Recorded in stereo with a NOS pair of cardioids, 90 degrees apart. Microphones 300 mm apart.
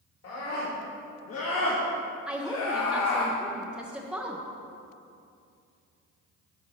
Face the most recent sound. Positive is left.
turn(degrees=-5)